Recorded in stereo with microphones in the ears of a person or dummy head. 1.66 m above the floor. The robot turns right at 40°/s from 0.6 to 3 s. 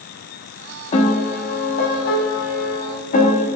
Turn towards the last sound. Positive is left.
turn(degrees=125)